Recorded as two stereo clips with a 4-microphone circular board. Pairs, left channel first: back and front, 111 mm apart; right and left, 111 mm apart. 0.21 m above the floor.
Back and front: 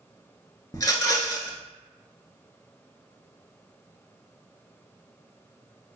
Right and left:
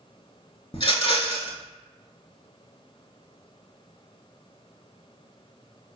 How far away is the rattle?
About 0.6 m.